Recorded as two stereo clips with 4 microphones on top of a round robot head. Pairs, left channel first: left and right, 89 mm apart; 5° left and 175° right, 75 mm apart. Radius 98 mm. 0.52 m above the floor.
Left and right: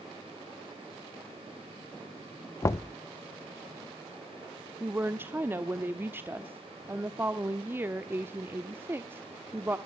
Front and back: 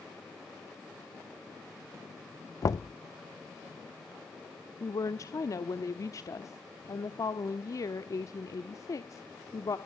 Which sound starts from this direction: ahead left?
Knocking, at 2.6 s.